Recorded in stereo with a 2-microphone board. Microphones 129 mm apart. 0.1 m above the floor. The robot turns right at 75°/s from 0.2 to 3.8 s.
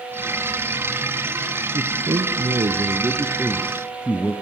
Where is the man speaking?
140° right, 1.9 m; by 4.3 s 15° left, 1.9 m.